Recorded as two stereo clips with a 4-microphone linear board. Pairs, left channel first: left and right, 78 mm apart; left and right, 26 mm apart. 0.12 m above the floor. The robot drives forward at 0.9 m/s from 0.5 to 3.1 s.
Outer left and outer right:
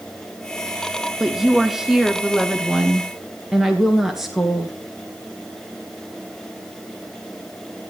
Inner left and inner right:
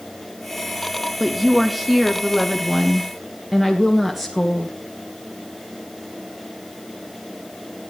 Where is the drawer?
No drawer in this recording.